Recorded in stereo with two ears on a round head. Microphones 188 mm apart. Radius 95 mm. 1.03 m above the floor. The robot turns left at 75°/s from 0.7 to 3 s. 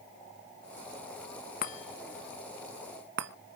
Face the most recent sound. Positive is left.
turn(degrees=-55)  # may be behind; listen again after turning